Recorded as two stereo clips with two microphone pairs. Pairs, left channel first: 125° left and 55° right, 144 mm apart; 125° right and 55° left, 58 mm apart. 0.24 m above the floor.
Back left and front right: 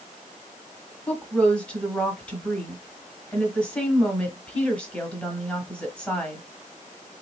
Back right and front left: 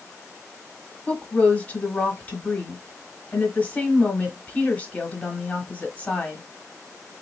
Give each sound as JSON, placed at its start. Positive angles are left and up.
{"t": 1.1, "sound": "a woman speaking", "azimuth_deg": -160, "distance_m": 1.0}